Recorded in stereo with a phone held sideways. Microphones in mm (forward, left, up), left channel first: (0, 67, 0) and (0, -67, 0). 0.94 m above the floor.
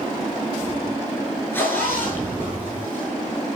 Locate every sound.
1.5 s a zipper: 15° left (ahead or behind), 9.5 m